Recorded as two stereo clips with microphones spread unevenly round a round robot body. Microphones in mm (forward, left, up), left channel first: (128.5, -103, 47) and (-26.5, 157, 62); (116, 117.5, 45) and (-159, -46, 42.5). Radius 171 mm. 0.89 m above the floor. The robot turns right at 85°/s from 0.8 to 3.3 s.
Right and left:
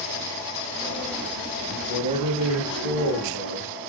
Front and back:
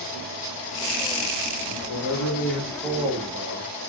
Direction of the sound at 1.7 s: 15° left.